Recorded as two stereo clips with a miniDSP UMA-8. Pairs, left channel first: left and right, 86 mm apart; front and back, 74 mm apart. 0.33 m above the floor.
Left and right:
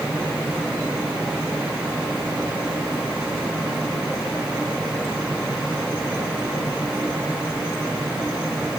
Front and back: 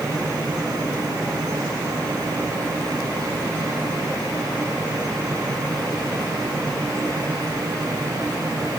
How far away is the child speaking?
No child speaking in this recording.